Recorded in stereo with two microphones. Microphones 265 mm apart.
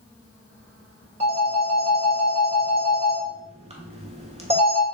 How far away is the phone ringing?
About 0.8 m.